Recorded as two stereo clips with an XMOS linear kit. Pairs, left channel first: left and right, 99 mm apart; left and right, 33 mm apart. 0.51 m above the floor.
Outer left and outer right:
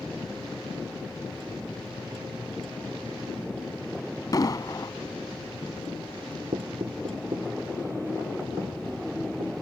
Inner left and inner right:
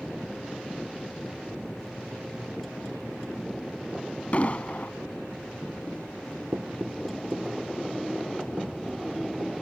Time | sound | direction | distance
4.3 | an explosion | 40° left (ahead or behind) | ?
6.5 | knocking | 80° right | ?